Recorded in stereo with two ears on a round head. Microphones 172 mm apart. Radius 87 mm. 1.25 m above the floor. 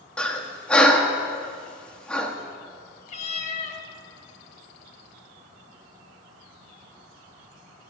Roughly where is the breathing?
Centre.